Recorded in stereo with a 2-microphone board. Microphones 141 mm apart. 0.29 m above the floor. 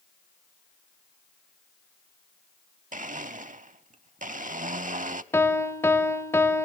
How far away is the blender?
About 0.6 m.